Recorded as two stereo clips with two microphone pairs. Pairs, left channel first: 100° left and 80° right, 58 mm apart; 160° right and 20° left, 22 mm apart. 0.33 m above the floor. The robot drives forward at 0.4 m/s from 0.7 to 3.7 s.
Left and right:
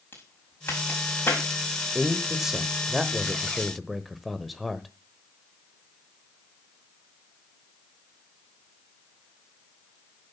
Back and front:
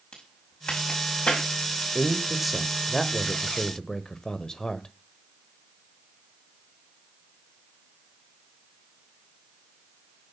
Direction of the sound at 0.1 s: 155° left.